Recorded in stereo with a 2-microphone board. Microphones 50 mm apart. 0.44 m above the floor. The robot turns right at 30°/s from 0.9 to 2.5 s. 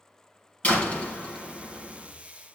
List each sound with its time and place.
0.6 s a door slam: 155° left, 3 m; by 2.1 s 170° right, 3 m